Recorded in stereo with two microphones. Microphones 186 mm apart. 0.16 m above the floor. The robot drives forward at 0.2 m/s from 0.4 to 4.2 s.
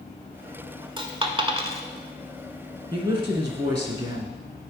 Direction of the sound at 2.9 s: 25° right (ahead or behind).